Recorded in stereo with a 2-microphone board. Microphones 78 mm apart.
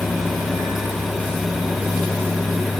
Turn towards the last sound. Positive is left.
No sound to turn to.